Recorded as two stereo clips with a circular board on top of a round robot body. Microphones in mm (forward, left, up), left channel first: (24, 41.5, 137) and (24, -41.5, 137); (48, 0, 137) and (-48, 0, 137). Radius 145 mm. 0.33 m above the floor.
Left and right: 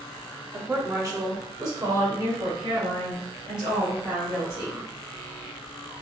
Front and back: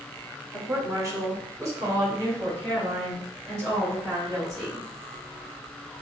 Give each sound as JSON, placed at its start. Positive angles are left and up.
{"t": 0.5, "sound": "a woman speaking", "azimuth_deg": -140, "distance_m": 1.1}